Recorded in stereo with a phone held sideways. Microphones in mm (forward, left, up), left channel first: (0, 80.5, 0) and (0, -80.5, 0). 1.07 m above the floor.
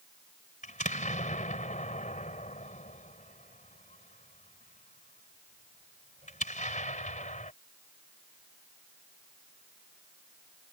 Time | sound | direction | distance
0.6 | an explosion | 50° left (ahead or behind) | ?